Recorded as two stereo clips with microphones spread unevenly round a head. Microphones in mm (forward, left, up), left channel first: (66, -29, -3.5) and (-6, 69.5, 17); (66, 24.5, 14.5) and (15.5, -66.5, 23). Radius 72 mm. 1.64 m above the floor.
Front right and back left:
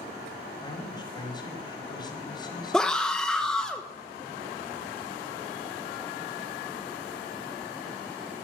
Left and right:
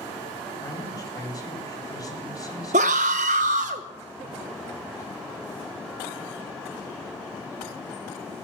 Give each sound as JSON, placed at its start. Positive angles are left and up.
{"t": 0.6, "sound": "a man speaking", "azimuth_deg": 5, "distance_m": 4.5}
{"t": 2.7, "sound": "a scream", "azimuth_deg": -145, "distance_m": 1.2}